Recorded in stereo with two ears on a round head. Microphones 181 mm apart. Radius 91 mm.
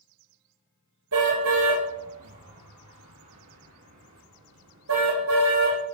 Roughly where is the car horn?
Right.